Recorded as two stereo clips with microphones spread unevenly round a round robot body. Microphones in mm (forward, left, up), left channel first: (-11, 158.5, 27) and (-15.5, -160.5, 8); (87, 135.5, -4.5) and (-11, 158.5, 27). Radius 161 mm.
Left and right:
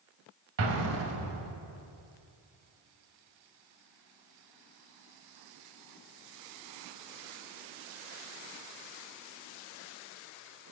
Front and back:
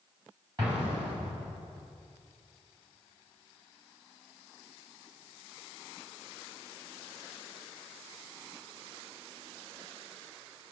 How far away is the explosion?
About 1.2 m.